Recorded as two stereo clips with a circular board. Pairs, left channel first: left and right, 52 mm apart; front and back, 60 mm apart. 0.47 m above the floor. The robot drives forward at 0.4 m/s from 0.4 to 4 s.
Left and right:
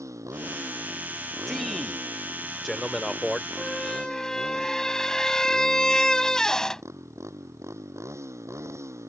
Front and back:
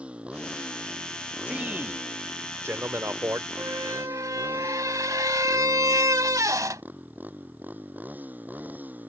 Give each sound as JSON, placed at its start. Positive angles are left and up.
{"t": 0.0, "sound": "a motorcycle", "azimuth_deg": -110}
{"t": 1.5, "sound": "a man speaking", "azimuth_deg": 165}
{"t": 3.6, "sound": "a squeak", "azimuth_deg": 165}